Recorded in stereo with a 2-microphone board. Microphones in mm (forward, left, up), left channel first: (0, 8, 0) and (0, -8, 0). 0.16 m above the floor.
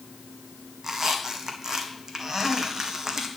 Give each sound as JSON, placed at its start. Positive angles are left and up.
{"t": 0.8, "sound": "a squeak", "side_deg": -35, "distance_m": 1.5}